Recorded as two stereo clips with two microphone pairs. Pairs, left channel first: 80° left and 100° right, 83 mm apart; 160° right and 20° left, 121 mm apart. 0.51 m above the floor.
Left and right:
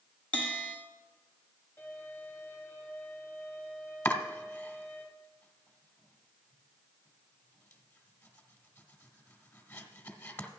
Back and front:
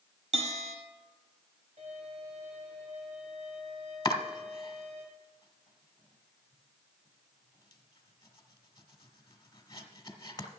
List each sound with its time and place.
0.3 s a bell: 5° left, 1.7 m
1.8 s a violin: 20° left, 3.5 m
4.0 s chopping: 145° left, 1.1 m